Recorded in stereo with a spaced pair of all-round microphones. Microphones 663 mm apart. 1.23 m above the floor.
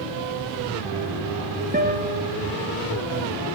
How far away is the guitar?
About 0.9 m.